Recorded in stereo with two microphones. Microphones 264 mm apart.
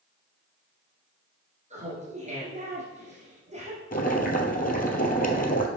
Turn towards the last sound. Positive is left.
turn(degrees=35)  # may be behind; listen again after turning